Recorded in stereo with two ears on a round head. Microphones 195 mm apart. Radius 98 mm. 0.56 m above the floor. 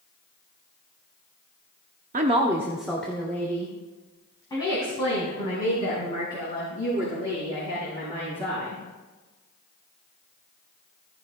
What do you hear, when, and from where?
2.1 s a woman speaking: 35° right (ahead or behind), 0.8 m; by 8.8 s 25° left (ahead or behind), 9.5 m